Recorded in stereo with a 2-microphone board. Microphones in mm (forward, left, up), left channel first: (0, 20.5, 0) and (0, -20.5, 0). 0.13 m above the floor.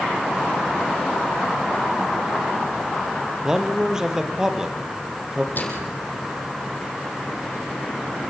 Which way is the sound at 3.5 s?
10° right (ahead or behind).